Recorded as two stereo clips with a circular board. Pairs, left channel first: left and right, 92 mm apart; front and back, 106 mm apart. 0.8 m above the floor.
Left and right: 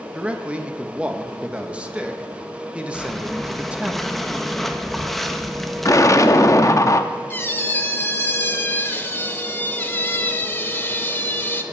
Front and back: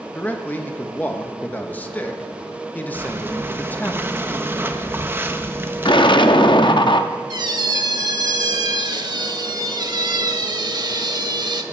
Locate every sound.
0.1 s a man speaking: 40° right, 0.8 m
2.9 s breathing: 175° left, 0.6 m
5.8 s an explosion: 35° left, 0.6 m
7.3 s a squeak: 150° left, 0.7 m